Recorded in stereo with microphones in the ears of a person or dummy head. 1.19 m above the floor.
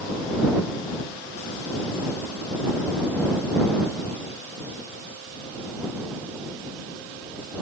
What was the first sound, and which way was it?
Only background noise.